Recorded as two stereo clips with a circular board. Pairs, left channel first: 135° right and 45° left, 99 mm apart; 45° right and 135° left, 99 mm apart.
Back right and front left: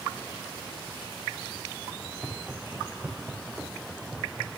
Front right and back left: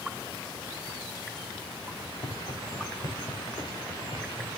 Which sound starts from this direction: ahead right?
Footsteps, at 2.0 s.